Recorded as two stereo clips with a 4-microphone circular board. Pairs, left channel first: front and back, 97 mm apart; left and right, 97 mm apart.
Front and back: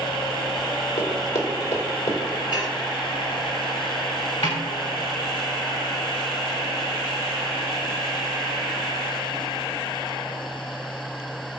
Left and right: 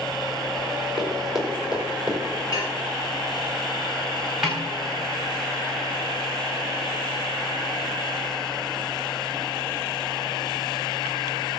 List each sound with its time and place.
1.0 s running footsteps: 5° right, 4 m; by 2.2 s 10° right, 4.5 m
2.5 s dishes clattering: 40° left, 5 m
4.4 s a snare drum: 10° right, 5 m